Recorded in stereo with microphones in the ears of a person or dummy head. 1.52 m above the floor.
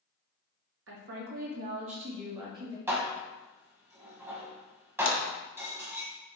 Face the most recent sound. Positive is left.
turn(degrees=20)  # may be behind; listen again after turning